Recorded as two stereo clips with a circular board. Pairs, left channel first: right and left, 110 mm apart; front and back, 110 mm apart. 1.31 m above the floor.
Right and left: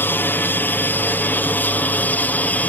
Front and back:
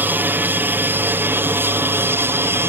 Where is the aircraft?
135° right; by 2.7 s 145° right.